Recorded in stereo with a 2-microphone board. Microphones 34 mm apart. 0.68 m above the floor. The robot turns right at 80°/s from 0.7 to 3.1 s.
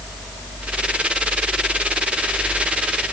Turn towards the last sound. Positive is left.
No sound to turn to.